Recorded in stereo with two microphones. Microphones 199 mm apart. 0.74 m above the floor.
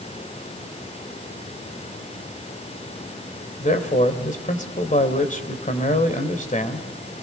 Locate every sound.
3.6 s a man speaking: 40° left (ahead or behind), 3 m